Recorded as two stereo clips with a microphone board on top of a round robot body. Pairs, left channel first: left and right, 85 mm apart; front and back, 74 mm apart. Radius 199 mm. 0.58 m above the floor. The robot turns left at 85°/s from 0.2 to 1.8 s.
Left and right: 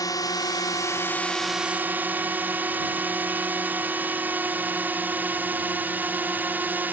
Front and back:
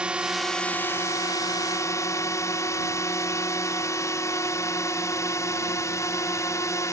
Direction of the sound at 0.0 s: 110° left.